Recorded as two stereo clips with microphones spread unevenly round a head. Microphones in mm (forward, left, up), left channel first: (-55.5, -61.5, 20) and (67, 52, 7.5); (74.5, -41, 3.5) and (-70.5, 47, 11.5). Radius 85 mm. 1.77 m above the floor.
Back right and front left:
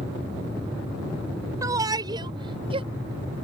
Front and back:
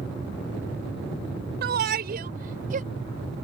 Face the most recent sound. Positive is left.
turn(degrees=105)